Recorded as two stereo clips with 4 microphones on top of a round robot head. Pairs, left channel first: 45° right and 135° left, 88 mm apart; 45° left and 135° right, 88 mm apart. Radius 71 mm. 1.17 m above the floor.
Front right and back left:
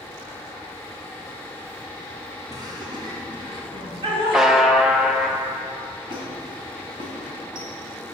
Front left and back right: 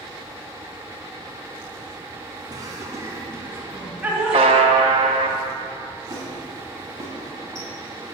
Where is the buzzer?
145° right, 0.6 m.